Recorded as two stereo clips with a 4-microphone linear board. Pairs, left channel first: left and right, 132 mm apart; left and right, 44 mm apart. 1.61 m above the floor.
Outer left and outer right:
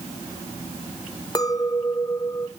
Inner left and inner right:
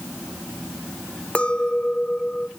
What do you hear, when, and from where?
1.4 s a clink: 30° left (ahead or behind), 0.7 m